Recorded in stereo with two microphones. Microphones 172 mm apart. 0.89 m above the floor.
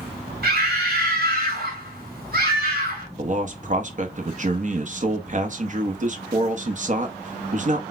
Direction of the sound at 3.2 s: 45° right (ahead or behind).